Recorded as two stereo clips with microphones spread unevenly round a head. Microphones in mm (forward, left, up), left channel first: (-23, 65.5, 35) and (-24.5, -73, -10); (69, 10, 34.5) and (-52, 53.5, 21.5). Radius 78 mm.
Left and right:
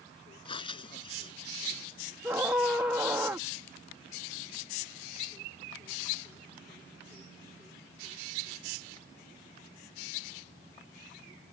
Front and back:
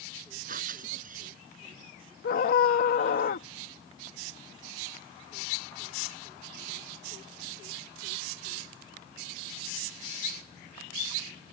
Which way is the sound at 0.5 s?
135° left.